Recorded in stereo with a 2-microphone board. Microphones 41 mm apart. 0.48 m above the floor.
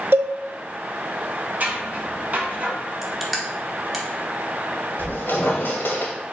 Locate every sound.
0.1 s a cowbell: 75° right (ahead or behind), 0.5 m
1.6 s scissors: 45° right (ahead or behind), 1.8 m
3.0 s crushing: centre (ahead or behind), 1.0 m
5.0 s a squeak: 70° left (ahead or behind), 1.2 m